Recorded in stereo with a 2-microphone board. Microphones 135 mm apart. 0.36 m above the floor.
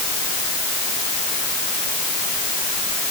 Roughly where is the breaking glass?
No breaking glass in this recording.